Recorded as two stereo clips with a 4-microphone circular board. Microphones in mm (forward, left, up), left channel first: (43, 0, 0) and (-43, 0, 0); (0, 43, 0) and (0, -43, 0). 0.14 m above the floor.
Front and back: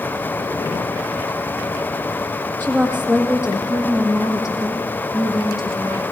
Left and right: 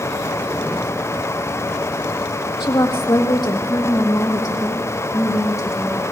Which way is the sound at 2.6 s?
70° left.